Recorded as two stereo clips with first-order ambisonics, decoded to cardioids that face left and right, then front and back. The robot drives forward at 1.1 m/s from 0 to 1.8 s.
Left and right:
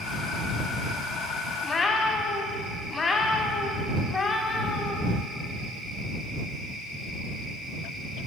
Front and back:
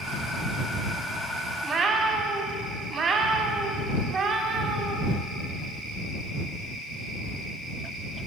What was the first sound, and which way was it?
A cat meowing, 115° left.